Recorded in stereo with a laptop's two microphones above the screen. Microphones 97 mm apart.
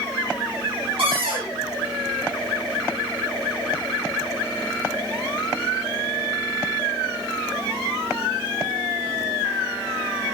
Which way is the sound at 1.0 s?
65° right (ahead or behind).